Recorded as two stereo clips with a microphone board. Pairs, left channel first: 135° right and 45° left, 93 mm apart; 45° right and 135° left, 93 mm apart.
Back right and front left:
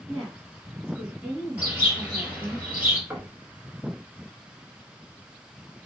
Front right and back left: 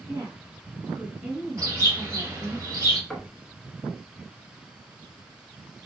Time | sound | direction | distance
0.1 | a woman speaking | 140° left | 1.6 m
1.6 | a bird | 105° left | 1.9 m
3.1 | knocking | 35° left | 0.8 m